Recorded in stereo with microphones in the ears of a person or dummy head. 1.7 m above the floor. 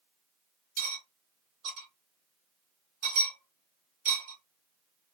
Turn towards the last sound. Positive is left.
turn(degrees=-50)  # may be behind; listen again after turning